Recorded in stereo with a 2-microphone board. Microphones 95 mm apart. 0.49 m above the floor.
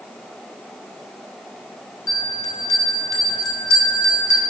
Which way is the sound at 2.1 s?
40° left (ahead or behind).